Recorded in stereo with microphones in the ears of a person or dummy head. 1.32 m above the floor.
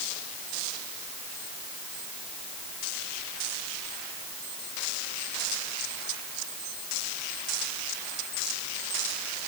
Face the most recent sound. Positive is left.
No sound to turn to.